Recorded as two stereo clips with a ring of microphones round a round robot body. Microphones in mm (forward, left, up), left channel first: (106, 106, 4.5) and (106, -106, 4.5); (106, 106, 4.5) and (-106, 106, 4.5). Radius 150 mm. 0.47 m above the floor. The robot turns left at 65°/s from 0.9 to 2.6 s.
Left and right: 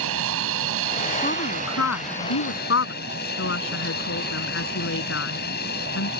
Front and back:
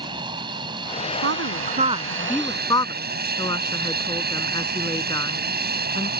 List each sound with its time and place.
0.0 s an aircraft: 105° right; by 6.2 s 145° left
1.2 s a woman speaking: 160° left; by 6.1 s 70° left